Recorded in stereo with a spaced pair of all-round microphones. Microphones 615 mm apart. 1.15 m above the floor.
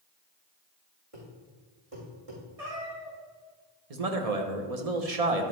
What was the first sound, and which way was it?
A thud, 60° right (ahead or behind).